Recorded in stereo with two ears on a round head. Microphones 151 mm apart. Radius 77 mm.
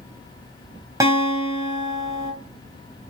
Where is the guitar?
20° right (ahead or behind), 3.5 m.